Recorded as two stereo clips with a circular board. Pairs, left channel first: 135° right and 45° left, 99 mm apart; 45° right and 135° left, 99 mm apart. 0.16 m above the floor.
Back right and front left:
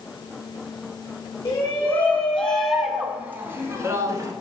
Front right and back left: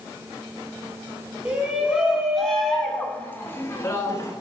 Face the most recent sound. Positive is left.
turn(degrees=0)